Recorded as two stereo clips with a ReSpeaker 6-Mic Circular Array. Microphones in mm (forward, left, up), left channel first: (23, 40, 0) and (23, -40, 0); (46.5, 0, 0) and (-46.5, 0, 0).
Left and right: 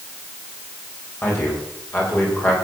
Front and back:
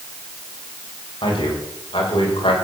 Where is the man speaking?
30° left, 8 m; by 2.5 s 25° left, 6.5 m.